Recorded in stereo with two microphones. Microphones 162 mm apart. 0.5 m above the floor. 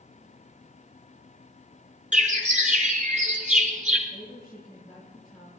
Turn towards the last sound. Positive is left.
turn(degrees=5)  # may be behind; listen again after turning